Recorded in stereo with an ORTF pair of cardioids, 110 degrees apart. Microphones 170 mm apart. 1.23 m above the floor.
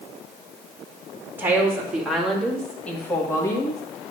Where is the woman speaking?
10° right, 2.5 m; by 3.8 s 20° left, 2 m.